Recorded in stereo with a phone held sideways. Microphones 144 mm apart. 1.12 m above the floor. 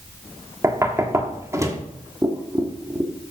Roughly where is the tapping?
Right.